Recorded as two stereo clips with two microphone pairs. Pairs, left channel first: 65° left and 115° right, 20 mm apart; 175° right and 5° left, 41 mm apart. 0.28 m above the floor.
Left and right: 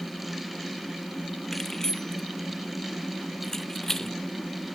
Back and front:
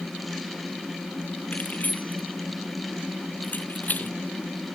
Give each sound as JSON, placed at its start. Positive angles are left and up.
{"t": 1.5, "sound": "keys jangling", "azimuth_deg": 135}